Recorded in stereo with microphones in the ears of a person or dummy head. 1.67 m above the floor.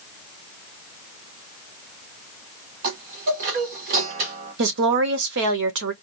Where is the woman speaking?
60° right (ahead or behind), 1.1 m.